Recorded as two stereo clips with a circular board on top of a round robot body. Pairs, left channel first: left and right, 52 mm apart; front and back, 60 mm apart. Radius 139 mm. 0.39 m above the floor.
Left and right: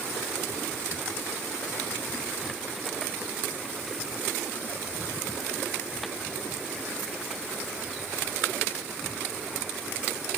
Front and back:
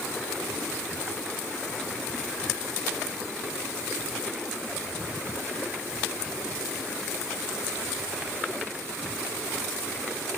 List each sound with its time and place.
Only background noise.